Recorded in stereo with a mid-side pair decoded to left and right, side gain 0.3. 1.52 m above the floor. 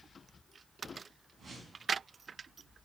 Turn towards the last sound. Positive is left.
turn(degrees=-50)